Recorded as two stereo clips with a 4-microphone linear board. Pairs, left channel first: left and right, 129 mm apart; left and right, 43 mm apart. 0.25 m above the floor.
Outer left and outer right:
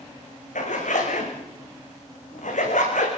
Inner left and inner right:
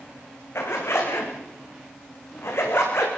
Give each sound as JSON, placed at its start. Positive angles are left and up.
{"t": 0.6, "sound": "a zipper", "side_deg": 70, "distance_m": 7.0}